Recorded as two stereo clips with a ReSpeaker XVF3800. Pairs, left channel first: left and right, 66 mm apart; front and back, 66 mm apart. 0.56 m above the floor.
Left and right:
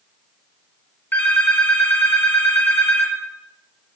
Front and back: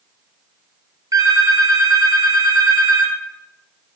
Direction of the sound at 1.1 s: 155° left.